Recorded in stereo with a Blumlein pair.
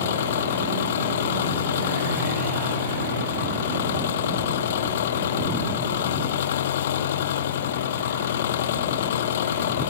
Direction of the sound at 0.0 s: 60° left.